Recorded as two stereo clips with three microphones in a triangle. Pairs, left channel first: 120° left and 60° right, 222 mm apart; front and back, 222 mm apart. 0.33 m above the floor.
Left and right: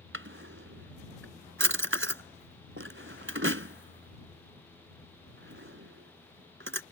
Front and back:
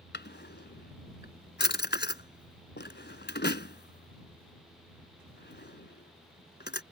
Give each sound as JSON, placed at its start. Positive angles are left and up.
{"t": 0.1, "sound": "a drawer", "azimuth_deg": -40}